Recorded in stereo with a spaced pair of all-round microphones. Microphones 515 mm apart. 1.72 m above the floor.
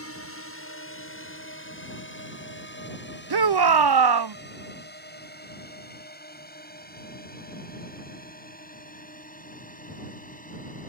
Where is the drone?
25° left (ahead or behind); by 10.9 s 15° left (ahead or behind).